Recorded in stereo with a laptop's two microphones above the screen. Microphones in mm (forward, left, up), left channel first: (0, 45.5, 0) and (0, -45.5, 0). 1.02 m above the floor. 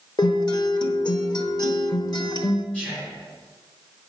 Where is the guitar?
50° left (ahead or behind), 1.0 m.